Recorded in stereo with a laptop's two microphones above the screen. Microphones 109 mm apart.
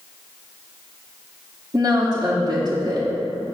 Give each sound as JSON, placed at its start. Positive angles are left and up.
{"t": 1.7, "sound": "a woman speaking", "side_deg": -35, "distance_m": 1.5}